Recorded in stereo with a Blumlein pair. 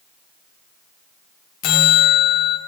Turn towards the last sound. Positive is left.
turn(degrees=40)